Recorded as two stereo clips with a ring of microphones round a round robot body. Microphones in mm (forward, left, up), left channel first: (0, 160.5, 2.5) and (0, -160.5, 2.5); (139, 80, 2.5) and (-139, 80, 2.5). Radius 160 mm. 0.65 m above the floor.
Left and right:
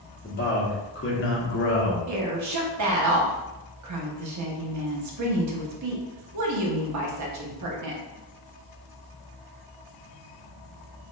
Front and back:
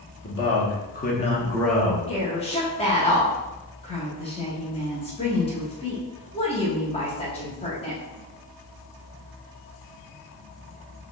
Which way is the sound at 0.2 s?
35° left.